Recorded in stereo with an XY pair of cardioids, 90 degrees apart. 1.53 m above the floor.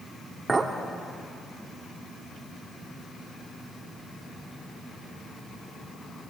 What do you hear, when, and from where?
0.5 s a clink: 25° right, 2.5 m